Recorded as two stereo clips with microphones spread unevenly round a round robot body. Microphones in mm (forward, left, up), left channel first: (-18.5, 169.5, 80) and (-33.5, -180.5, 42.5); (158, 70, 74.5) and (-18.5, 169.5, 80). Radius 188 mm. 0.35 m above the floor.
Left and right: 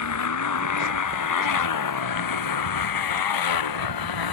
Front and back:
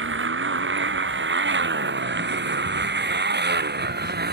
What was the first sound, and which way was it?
A motorcycle, 130° left.